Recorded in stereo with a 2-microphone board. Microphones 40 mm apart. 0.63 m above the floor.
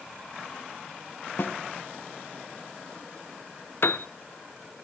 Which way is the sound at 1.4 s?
55° left (ahead or behind).